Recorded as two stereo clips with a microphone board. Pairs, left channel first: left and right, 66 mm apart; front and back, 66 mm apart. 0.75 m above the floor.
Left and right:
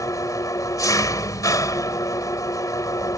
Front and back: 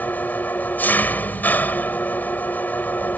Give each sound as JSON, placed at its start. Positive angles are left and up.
{"t": 0.0, "sound": "an engine running", "azimuth_deg": 60}